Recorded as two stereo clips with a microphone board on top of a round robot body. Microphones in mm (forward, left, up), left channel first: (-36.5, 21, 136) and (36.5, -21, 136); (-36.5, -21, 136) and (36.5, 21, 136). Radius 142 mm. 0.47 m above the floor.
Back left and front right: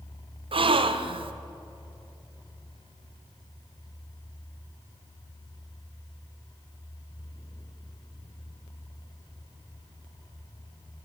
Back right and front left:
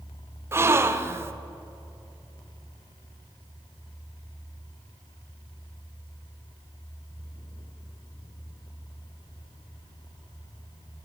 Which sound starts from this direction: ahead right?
A gasp, at 0.5 s.